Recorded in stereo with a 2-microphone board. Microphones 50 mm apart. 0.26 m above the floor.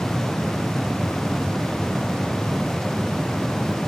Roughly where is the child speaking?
I don't hear a child speaking.